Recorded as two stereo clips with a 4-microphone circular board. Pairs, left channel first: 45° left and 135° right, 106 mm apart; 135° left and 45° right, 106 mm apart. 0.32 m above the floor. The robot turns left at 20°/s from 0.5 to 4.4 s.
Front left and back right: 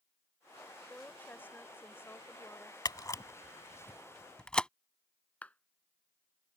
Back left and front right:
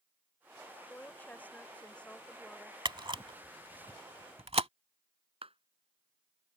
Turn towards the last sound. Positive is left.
turn(degrees=-30)